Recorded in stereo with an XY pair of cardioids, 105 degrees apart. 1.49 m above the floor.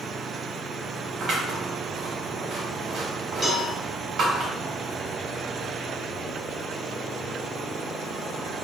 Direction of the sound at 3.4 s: Straight ahead.